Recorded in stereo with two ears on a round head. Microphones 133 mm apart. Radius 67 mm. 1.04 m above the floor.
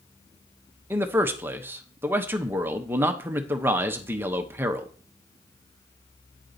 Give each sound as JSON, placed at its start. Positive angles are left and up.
{"t": 0.9, "sound": "a man speaking", "side_deg": -15, "distance_m": 0.8}